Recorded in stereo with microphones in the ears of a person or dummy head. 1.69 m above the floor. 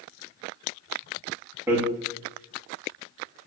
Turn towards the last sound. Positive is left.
turn(degrees=-15)  # may be behind; listen again after turning